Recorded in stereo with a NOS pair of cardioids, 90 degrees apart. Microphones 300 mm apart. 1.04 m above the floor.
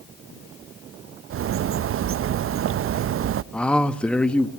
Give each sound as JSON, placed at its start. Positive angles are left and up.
{"t": 1.3, "sound": "a bird", "azimuth_deg": -45, "distance_m": 0.5}
{"t": 3.5, "sound": "a man speaking", "azimuth_deg": 5, "distance_m": 1.4}